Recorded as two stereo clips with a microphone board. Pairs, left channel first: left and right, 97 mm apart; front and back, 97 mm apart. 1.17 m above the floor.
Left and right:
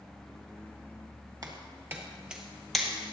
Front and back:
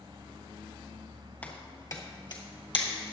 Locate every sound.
1.4 s footsteps: 65° right, 1.5 m; by 3.1 s 10° left, 2.5 m